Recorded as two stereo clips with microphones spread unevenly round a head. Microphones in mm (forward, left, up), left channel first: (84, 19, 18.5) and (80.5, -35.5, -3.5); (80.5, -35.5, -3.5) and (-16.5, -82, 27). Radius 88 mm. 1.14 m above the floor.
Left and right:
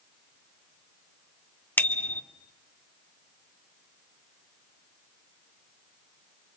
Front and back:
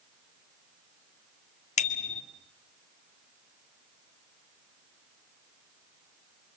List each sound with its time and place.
1.8 s a bicycle bell: 30° left, 2 m